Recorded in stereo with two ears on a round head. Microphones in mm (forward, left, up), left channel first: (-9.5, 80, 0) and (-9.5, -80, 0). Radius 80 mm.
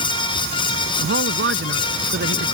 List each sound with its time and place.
1.0 s a man speaking: 75° right (ahead or behind); by 2.5 s 70° right (ahead or behind)